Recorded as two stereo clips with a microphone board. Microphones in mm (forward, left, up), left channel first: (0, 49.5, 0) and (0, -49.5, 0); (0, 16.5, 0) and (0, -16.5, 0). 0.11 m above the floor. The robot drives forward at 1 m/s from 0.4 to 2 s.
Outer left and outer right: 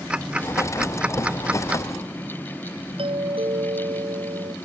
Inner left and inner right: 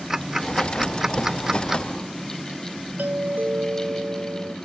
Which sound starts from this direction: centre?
Ticking, at 0.1 s.